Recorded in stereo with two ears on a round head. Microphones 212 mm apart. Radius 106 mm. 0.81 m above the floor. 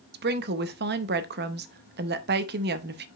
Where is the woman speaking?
45° right (ahead or behind), 0.7 m.